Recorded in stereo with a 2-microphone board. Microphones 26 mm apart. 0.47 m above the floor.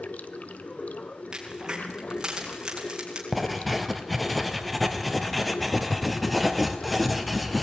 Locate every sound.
0.0 s running water: 70° left (ahead or behind), 1.1 m
1.3 s a crack: 30° right (ahead or behind), 5 m
3.3 s writing: centre (ahead or behind), 1.7 m